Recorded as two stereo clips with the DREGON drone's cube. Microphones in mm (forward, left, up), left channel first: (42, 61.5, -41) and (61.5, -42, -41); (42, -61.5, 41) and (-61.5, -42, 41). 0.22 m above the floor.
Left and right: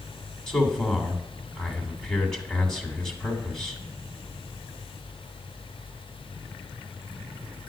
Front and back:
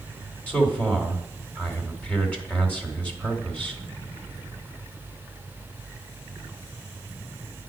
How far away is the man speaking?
About 1.4 m.